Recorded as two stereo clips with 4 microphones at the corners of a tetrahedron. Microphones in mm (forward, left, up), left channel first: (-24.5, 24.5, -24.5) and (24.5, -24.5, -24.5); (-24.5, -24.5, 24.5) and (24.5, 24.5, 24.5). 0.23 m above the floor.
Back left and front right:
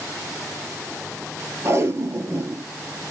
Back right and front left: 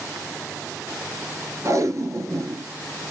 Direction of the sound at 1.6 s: 5° left.